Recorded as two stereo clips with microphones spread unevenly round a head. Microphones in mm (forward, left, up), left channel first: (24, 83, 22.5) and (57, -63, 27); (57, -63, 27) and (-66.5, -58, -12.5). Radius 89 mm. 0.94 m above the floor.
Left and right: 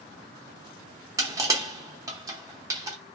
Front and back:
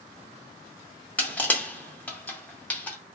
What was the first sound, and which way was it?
Crushing, 30° right.